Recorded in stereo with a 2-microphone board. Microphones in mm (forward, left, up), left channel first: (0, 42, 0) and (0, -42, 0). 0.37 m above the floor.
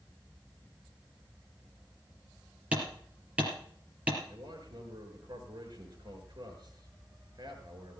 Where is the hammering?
15° right (ahead or behind), 4.5 m.